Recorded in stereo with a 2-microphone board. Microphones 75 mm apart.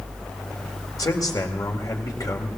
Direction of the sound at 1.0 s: 55° left (ahead or behind).